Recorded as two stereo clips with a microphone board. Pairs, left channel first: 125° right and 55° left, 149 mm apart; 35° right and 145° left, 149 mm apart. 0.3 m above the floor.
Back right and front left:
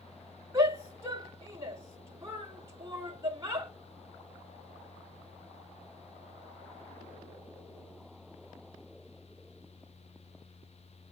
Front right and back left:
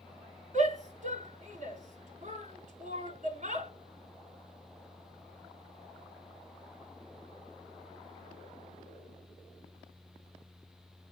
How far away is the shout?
About 3 m.